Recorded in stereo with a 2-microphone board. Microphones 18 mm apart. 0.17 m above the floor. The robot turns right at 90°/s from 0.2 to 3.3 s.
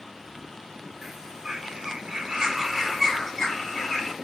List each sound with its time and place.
1.0 s a bird: 170° right, 0.9 m; by 4.1 s 40° left, 0.9 m